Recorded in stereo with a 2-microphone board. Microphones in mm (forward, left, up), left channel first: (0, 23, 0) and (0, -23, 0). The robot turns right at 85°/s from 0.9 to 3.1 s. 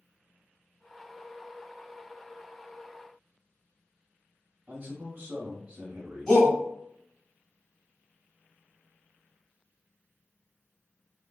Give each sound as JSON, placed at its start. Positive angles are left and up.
{"t": 4.7, "sound": "a man speaking", "side_deg": -30, "distance_m": 1.0}
{"t": 6.3, "sound": "a shout", "side_deg": 10, "distance_m": 1.9}